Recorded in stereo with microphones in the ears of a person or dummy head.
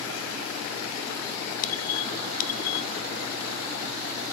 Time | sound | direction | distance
1.6 | a squeak | 45° left (ahead or behind) | 0.7 m